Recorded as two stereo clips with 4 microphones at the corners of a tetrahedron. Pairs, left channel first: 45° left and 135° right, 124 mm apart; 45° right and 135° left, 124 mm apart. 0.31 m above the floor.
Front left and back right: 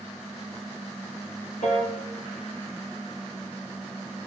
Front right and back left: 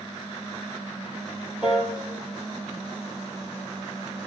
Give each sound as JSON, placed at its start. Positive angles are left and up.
{"t": 1.6, "sound": "a piano", "azimuth_deg": 55, "distance_m": 2.0}